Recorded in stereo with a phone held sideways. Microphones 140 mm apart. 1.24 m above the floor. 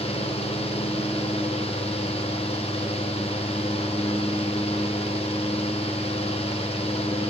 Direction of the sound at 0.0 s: 45° left (ahead or behind).